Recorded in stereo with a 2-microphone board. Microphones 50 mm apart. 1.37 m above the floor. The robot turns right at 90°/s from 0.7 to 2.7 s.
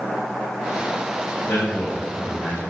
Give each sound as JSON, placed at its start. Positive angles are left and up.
{"t": 1.4, "sound": "a man speaking", "azimuth_deg": 145, "distance_m": 5.5}